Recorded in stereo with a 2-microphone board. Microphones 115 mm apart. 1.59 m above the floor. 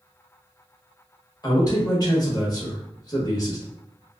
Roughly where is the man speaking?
Left.